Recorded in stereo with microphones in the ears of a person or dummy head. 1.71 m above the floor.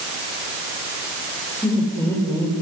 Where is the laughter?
5° left (ahead or behind), 7 m; by 2.6 s 15° left (ahead or behind), 7 m.